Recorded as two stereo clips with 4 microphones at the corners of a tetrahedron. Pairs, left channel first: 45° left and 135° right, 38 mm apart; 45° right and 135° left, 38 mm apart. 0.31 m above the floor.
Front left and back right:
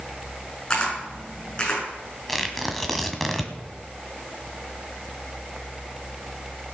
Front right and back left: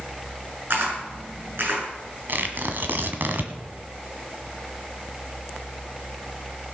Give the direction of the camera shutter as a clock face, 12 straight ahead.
8 o'clock.